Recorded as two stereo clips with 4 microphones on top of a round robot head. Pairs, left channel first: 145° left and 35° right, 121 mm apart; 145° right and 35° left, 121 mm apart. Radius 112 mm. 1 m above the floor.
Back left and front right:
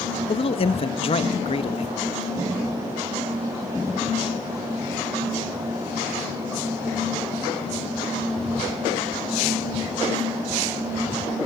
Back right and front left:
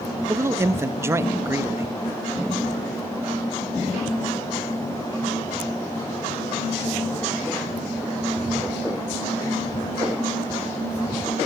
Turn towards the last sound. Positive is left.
turn(degrees=105)